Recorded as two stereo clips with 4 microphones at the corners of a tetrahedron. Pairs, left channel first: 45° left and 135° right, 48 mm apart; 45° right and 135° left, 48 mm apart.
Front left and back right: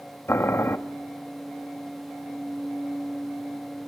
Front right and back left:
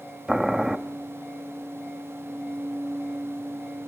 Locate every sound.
0.3 s boiling: 60° left, 1.3 m